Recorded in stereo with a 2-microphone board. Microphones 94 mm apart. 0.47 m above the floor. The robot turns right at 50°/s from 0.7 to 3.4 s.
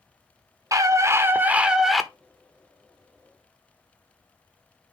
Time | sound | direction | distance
0.7 | a scream | 65° right | 1.0 m